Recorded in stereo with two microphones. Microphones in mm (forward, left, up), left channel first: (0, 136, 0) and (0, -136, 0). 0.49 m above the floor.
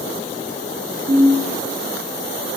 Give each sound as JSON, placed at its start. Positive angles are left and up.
{"t": 1.1, "sound": "a ringtone", "side_deg": -35, "distance_m": 2.5}